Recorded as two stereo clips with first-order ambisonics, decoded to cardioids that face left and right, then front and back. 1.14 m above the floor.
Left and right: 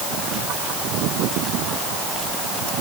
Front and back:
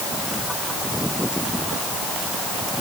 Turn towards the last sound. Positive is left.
No sound to turn to.